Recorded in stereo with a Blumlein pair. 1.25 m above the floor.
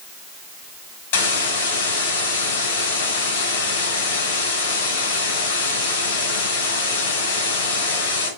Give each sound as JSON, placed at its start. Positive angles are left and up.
{"t": 1.1, "sound": "a hiss", "azimuth_deg": 55, "distance_m": 5.5}